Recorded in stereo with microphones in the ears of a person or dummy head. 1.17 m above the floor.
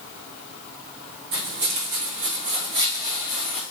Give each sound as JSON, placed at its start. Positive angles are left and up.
{"t": 1.3, "sound": "footsteps", "side_deg": -55, "distance_m": 2.5}